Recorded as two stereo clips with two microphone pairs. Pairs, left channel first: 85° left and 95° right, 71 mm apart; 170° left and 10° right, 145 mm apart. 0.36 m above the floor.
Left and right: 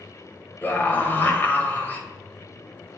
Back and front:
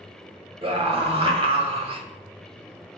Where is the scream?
25° left, 1.3 m.